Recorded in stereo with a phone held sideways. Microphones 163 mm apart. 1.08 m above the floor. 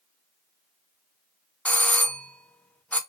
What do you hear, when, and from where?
1.6 s a doorbell: 10° left (ahead or behind), 0.6 m